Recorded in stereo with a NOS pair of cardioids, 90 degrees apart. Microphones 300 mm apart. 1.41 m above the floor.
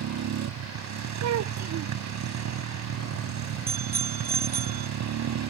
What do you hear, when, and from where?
0.0 s a motorcycle: 65° right
1.2 s a child speaking: 65° right
3.7 s a bicycle bell: 30° right